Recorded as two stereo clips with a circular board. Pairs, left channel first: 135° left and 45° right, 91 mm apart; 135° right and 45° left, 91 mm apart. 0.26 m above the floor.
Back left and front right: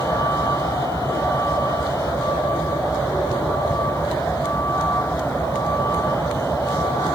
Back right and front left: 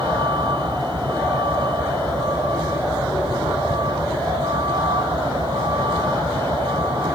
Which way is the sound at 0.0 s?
75° left.